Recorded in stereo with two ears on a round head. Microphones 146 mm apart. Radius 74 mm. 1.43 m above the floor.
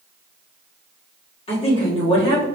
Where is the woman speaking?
35° left (ahead or behind), 1.6 m.